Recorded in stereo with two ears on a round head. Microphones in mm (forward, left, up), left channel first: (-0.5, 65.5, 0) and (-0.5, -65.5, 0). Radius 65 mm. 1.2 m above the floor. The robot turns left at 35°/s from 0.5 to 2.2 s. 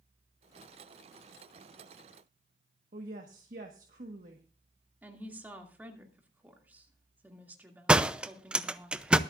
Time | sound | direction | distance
2.9 | a woman speaking | 60° right (ahead or behind) | 1.5 m
5.0 | a woman speaking | 15° right (ahead or behind) | 2.5 m
7.9 | a door slam | 5° right (ahead or behind) | 0.6 m